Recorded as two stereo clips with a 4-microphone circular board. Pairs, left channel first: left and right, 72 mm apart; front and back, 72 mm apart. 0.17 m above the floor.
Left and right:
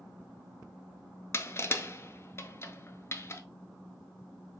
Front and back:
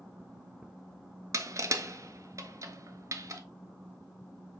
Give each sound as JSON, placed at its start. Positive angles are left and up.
{"t": 1.3, "sound": "crushing", "azimuth_deg": 145, "distance_m": 0.5}